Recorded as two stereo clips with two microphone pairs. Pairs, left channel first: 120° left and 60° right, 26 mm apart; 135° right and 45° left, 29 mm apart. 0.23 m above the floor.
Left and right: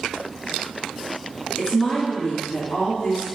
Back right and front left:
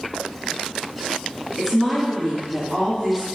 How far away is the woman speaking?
About 1.8 m.